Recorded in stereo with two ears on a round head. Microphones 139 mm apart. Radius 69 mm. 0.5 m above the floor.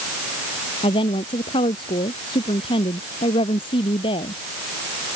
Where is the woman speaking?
35° left (ahead or behind).